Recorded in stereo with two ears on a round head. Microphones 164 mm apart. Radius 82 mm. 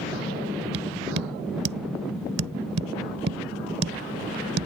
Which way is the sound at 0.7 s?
60° right (ahead or behind).